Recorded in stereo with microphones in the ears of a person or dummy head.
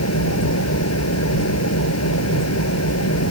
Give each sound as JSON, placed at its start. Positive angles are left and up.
{"t": 0.0, "sound": "an engine running", "side_deg": 90}